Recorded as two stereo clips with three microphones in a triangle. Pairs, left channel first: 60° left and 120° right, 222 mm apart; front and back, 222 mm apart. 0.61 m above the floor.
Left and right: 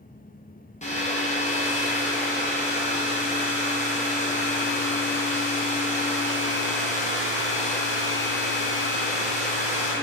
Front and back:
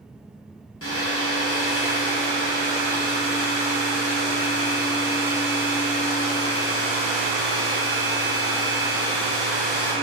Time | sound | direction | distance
0.8 | a hair dryer | straight ahead | 0.6 m